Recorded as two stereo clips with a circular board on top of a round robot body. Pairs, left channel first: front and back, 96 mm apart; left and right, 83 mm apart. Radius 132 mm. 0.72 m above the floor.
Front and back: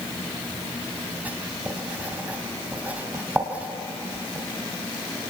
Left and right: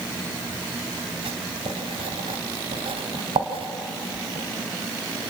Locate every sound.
1.2 s writing: 105° right, 2.5 m